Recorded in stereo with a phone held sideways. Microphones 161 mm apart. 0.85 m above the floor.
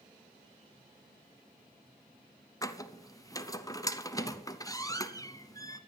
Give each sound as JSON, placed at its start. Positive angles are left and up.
{"t": 2.6, "sound": "a squeak", "side_deg": 20, "distance_m": 0.8}